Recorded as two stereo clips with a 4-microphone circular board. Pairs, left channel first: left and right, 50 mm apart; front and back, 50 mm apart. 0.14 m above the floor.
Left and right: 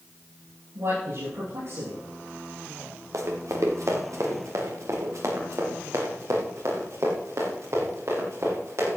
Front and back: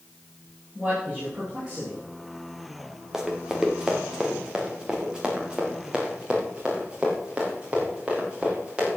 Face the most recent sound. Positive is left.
turn(degrees=-110)